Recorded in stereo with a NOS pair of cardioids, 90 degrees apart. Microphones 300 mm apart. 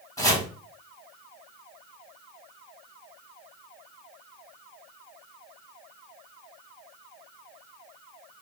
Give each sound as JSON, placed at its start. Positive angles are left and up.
{"t": 0.2, "sound": "chopping", "azimuth_deg": 10, "distance_m": 1.5}